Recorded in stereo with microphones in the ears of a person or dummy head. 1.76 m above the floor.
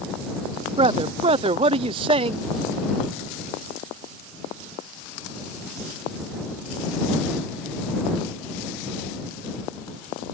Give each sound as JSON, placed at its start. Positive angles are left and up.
{"t": 0.8, "sound": "a man speaking", "side_deg": -30}